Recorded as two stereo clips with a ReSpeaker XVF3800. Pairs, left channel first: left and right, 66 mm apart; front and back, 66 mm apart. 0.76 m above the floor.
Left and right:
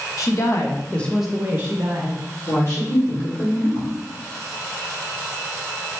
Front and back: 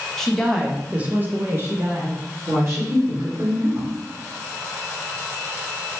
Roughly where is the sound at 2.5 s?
Behind left.